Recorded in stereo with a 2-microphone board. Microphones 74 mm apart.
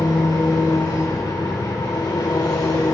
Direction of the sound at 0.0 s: 60° left (ahead or behind).